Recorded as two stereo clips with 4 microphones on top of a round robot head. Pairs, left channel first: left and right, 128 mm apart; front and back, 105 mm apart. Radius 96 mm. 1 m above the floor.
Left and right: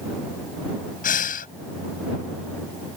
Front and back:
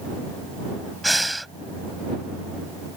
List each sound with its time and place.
1.0 s breathing: 90° left